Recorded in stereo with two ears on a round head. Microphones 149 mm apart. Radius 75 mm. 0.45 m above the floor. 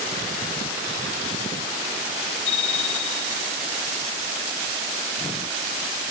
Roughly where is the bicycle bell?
Left.